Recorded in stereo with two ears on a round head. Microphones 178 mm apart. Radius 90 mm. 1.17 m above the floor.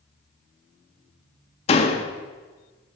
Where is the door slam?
30° left (ahead or behind), 1.4 m.